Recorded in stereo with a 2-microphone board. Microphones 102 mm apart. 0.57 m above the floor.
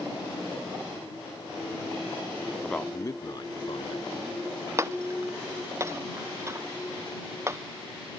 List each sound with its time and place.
2.6 s a man speaking: centre (ahead or behind); by 4.4 s 65° left (ahead or behind)
4.8 s breaking glass: 25° right (ahead or behind)